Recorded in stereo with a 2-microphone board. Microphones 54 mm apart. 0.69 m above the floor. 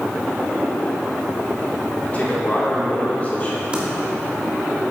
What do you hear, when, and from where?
2.0 s a man speaking: 30° left (ahead or behind), 2 m
3.7 s typing on a keyboard: 20° right (ahead or behind), 1.5 m